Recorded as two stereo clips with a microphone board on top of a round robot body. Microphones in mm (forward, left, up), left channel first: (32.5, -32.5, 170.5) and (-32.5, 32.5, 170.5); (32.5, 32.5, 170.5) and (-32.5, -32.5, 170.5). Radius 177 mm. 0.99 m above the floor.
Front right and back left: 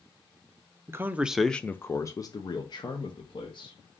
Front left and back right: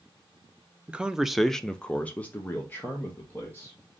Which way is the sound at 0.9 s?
155° left.